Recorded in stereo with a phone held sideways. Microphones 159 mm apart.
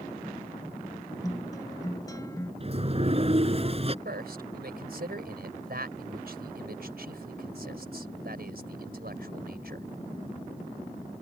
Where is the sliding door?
40° right (ahead or behind).